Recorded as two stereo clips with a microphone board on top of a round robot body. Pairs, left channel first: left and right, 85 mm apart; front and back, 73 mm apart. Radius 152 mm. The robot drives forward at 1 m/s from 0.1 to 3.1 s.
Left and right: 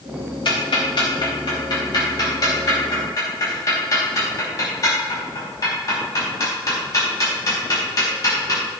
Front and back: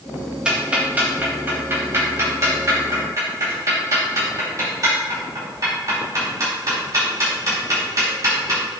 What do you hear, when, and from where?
0.5 s ticking: 105° left, 3.5 m; by 8.6 s 135° left, 5 m